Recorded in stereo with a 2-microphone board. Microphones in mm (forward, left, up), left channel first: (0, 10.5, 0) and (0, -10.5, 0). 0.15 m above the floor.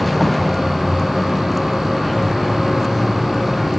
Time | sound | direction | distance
0.0 | a vehicle | 5° left (ahead or behind) | ?